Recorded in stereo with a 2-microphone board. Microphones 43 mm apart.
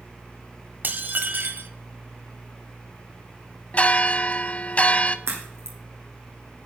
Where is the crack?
75° right (ahead or behind), 4.5 m.